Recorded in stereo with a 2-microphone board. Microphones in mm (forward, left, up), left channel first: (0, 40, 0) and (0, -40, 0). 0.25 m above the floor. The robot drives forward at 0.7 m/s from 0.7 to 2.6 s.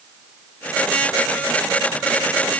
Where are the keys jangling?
I don't hear keys jangling.